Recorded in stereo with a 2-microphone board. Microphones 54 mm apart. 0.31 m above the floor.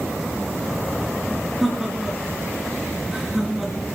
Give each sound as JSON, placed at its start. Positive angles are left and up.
{"t": 1.6, "sound": "laughter", "side_deg": 5, "distance_m": 4.0}